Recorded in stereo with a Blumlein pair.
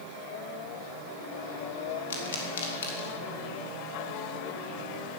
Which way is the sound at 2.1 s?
65° left.